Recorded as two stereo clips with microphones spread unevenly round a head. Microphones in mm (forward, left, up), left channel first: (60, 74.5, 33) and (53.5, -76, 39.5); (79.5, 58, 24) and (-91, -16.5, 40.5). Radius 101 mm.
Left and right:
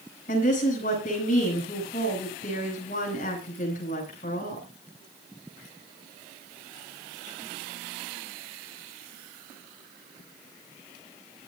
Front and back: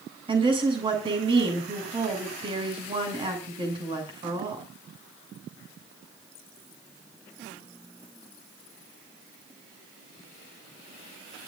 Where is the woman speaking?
140° left, 8 m.